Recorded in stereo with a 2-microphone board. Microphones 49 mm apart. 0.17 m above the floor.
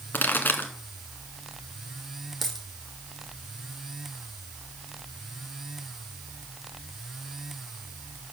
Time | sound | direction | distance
0.1 | a pop | 40° left (ahead or behind) | 1.6 m
2.4 | a dropped coin | 5° left (ahead or behind) | 2 m